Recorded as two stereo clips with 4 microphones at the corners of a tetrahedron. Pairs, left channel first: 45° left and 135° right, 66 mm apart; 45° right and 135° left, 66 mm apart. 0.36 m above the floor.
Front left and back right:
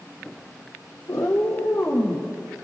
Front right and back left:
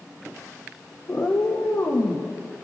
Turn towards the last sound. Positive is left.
turn(degrees=-5)